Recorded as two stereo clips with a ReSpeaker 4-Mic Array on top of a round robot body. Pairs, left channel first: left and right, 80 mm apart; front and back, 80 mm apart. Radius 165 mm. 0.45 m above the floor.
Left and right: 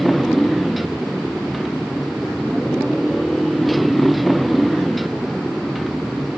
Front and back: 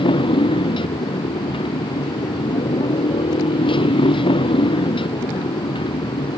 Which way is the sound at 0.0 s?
Straight ahead.